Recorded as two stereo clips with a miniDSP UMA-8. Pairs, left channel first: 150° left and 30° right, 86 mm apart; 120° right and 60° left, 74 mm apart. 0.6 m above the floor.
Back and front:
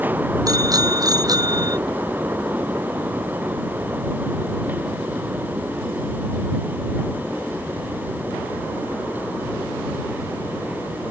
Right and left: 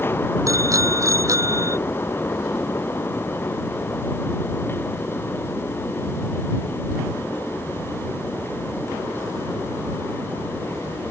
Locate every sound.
0.5 s a bicycle bell: 15° left; by 1.8 s 10° left